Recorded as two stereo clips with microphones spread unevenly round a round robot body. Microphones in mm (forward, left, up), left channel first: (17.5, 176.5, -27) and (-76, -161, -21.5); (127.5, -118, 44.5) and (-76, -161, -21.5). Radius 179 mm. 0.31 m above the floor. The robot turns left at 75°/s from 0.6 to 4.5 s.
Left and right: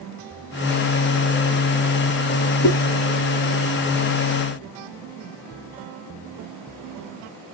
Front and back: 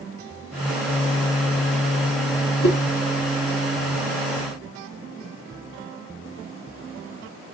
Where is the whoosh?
25° left, 1.5 m; by 2.8 s 15° left, 1.5 m.